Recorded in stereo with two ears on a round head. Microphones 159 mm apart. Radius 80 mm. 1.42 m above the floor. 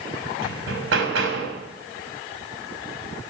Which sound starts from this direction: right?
Hammering, at 0.4 s.